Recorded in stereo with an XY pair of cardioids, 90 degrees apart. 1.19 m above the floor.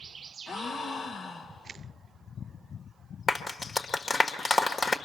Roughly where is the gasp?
Ahead left.